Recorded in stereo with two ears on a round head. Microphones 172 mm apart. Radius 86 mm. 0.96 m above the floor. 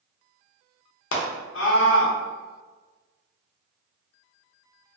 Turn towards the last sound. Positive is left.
turn(degrees=70)  # may be behind; listen again after turning